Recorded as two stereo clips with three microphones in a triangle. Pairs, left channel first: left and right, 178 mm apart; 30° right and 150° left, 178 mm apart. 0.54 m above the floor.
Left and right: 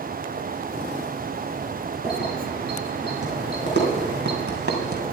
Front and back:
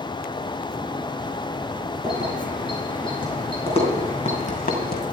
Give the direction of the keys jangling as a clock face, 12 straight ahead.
3 o'clock.